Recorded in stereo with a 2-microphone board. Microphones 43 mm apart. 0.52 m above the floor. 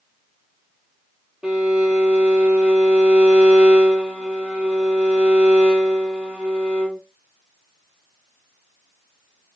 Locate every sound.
1.4 s a violin: 20° right (ahead or behind), 3.5 m